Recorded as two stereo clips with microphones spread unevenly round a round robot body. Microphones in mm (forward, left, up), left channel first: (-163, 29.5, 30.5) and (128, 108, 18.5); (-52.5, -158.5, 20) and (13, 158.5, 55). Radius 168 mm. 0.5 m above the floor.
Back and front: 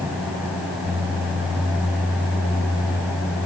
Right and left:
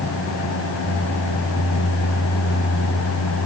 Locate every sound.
Only background noise.